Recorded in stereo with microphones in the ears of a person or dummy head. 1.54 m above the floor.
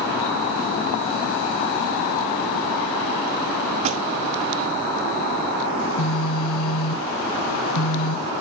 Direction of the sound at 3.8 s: 35° right (ahead or behind).